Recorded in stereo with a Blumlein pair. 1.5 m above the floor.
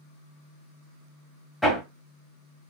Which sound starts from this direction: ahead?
Hammering, at 1.6 s.